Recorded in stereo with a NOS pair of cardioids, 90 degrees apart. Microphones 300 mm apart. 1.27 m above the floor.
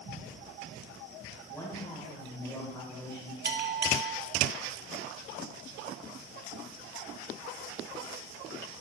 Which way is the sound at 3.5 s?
35° right.